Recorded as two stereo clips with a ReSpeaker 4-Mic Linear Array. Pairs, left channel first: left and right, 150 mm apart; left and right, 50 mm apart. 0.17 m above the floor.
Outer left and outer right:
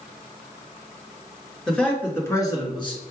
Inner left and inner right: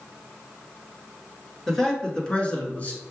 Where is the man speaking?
5° left (ahead or behind), 1.9 m; by 3.0 s 35° left (ahead or behind), 1.7 m.